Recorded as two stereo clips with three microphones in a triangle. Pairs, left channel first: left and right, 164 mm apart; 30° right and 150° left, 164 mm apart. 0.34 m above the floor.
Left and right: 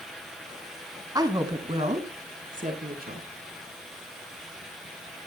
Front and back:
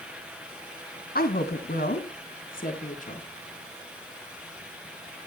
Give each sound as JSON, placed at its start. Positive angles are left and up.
{"t": 1.1, "sound": "a woman speaking", "azimuth_deg": -25, "distance_m": 2.5}